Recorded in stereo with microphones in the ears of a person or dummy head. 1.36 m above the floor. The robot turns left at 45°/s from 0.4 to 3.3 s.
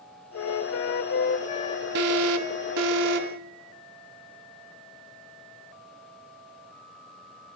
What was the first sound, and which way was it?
A flute, 90° left.